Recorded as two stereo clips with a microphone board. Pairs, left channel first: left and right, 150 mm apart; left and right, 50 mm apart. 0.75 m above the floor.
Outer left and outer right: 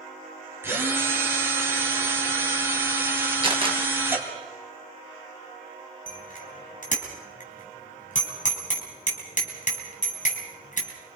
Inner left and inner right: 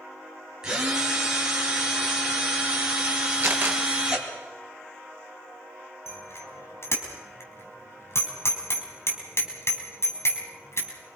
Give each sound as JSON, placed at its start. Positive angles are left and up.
{"t": 0.6, "sound": "a drill", "side_deg": -15, "distance_m": 4.0}
{"t": 3.4, "sound": "a camera shutter", "side_deg": -35, "distance_m": 3.5}
{"t": 6.1, "sound": "a bicycle bell", "side_deg": 60, "distance_m": 4.0}